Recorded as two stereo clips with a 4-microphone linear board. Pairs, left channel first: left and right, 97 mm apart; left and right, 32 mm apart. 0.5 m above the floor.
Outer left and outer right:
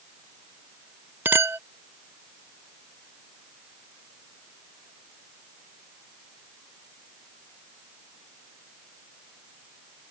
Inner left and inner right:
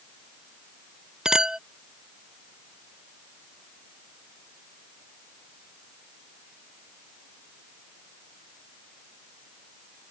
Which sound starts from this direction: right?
A clink, at 1.2 s.